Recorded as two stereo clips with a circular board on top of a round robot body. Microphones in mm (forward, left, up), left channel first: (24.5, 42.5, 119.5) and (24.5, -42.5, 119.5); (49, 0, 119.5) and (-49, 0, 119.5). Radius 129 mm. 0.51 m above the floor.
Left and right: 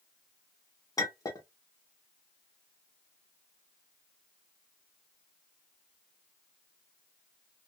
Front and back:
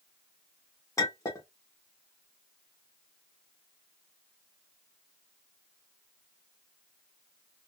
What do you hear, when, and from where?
1.0 s a clink: 50° left, 1.3 m